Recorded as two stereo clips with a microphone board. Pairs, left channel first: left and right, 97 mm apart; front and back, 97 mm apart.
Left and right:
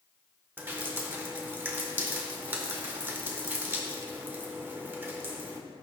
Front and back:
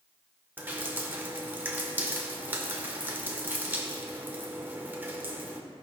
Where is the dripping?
135° right, 1.5 m.